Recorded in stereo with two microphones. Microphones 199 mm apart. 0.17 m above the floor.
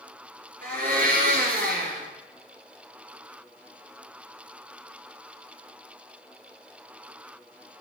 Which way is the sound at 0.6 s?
45° right (ahead or behind).